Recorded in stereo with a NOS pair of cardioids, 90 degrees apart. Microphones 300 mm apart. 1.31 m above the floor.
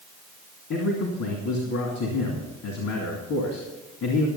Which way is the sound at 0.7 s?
70° left.